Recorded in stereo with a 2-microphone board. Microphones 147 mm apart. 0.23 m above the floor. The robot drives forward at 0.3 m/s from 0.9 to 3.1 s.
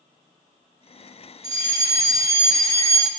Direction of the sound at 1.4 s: 20° left (ahead or behind).